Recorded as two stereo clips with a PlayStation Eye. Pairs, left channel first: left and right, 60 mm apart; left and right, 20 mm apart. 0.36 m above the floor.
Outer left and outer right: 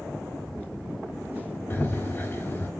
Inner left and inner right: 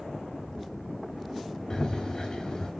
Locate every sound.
1.7 s running footsteps: 40° left (ahead or behind), 3.5 m